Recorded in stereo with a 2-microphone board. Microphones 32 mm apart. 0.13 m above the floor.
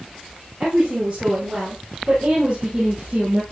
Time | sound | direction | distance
0.6 | a woman speaking | 35° right (ahead or behind) | 5 m